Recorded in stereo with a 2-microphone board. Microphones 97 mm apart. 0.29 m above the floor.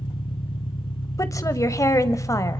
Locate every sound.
0.0 s an engine running: 65° left (ahead or behind), 1.5 m
1.2 s a woman speaking: 35° left (ahead or behind), 1.2 m